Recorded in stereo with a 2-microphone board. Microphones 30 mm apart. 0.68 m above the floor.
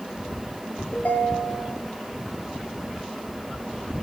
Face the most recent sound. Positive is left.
turn(degrees=65)  # may be behind; listen again after turning